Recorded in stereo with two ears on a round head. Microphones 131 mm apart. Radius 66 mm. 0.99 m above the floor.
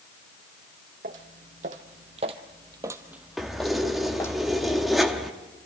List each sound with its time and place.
1.0 s footsteps: 60° right (ahead or behind), 2 m; by 4.4 s 20° left (ahead or behind), 2 m
3.4 s keys jangling: centre (ahead or behind), 1.1 m